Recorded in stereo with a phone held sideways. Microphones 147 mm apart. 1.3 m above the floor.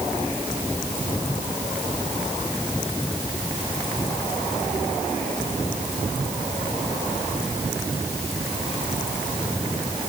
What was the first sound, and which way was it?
Only background noise.